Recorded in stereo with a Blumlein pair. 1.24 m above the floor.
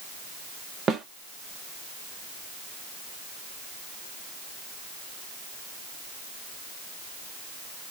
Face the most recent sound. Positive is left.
turn(degrees=-20)